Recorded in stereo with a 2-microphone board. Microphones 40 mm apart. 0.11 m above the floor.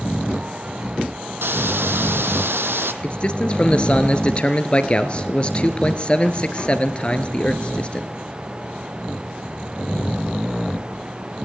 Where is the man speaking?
30° left (ahead or behind), 1.6 m.